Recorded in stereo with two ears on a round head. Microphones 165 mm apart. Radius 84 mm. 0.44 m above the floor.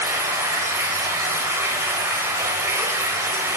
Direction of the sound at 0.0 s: 15° right (ahead or behind).